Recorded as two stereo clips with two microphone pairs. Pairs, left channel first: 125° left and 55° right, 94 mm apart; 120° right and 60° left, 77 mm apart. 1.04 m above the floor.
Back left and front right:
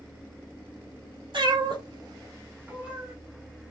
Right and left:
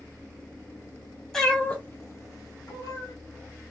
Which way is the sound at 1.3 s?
40° right.